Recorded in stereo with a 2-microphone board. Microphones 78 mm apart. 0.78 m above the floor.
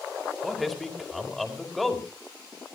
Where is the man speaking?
Centre (ahead or behind), 2.5 m.